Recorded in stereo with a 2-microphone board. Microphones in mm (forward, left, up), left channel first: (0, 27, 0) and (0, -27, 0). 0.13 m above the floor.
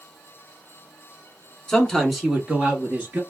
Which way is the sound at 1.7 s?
10° left (ahead or behind).